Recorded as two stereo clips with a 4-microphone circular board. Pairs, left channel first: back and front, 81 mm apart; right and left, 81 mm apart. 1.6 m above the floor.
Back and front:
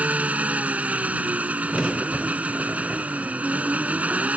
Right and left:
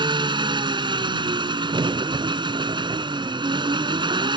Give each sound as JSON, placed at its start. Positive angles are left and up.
{"t": 0.0, "sound": "an engine running", "azimuth_deg": 75}
{"t": 1.7, "sound": "a crack", "azimuth_deg": 95}